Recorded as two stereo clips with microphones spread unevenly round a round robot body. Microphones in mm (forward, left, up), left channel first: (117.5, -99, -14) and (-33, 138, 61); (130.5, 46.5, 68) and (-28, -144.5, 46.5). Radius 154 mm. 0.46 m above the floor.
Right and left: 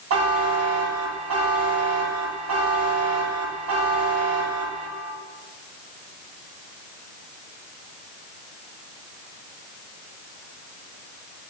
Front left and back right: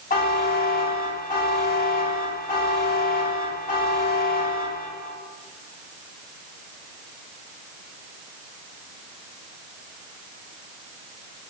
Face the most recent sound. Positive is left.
turn(degrees=90)